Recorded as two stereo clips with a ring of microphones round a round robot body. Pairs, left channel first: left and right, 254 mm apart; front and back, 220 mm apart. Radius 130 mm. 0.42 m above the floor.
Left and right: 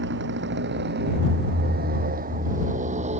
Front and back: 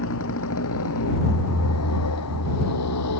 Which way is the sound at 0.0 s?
40° right.